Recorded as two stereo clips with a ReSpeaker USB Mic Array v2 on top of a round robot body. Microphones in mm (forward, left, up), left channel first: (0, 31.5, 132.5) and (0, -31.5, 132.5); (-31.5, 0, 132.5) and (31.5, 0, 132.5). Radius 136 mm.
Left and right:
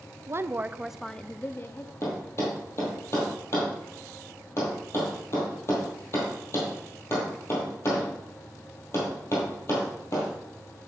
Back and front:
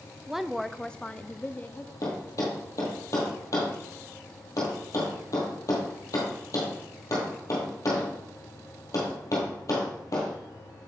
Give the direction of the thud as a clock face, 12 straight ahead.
7 o'clock.